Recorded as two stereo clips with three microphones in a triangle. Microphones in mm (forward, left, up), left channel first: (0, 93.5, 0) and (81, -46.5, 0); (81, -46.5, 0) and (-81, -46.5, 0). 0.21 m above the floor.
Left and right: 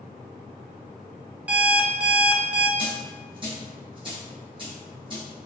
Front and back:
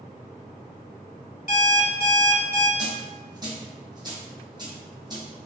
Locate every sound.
1.5 s an alarm clock: 20° left, 0.8 m
2.8 s a dropped coin: 115° right, 1.9 m